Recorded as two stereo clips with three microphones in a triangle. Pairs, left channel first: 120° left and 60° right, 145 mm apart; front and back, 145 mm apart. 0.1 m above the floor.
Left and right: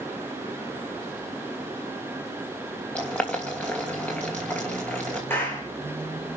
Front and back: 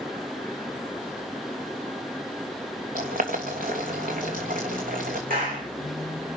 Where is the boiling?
160° right, 3 m.